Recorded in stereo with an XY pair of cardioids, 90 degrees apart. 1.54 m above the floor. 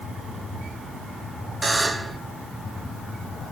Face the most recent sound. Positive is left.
turn(degrees=-20)